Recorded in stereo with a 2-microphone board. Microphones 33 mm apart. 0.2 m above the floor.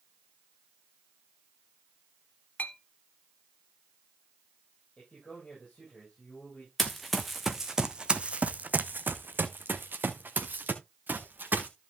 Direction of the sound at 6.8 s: 5° left (ahead or behind).